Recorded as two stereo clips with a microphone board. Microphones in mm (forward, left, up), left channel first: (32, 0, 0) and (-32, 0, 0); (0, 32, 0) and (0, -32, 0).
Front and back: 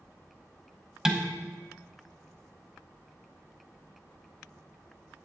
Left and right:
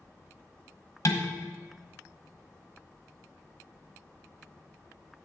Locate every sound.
1.1 s dishes clattering: 105° left, 1.1 m